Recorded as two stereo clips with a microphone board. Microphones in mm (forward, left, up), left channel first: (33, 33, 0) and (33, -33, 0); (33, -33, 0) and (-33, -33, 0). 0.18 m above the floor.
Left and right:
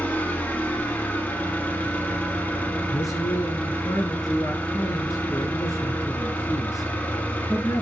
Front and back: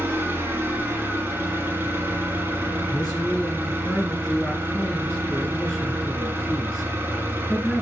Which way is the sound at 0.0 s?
145° left.